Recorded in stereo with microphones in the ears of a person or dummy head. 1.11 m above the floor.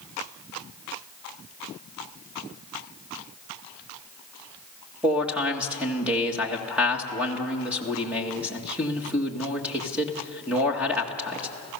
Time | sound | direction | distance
5.0 | a man speaking | 5° right (ahead or behind) | 1.7 m